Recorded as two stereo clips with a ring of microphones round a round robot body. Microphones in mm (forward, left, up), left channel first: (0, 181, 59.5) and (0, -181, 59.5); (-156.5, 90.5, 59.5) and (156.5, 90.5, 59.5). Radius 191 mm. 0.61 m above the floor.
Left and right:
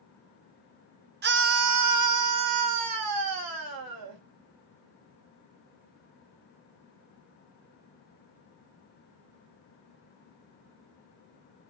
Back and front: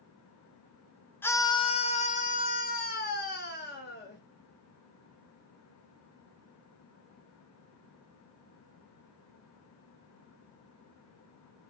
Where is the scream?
105° right, 0.6 m; by 4.2 s 120° right, 2 m.